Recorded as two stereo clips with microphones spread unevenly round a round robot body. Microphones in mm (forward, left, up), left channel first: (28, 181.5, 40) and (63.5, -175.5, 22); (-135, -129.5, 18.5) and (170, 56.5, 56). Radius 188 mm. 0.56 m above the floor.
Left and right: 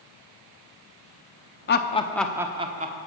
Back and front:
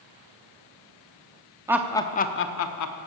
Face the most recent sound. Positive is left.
turn(degrees=-145)